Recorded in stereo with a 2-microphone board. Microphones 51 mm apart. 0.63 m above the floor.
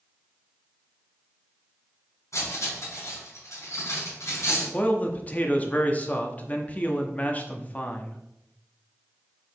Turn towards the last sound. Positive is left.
turn(degrees=30)  # may be behind; listen again after turning